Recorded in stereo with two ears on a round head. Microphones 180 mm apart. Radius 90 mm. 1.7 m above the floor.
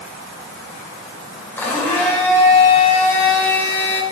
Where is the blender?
10° left (ahead or behind), 4.5 m.